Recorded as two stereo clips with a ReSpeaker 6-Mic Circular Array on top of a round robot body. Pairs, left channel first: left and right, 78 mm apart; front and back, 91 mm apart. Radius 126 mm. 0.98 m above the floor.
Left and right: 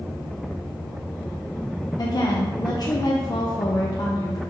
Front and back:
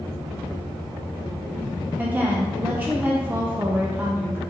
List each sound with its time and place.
2.0 s a woman speaking: 110° left, 0.6 m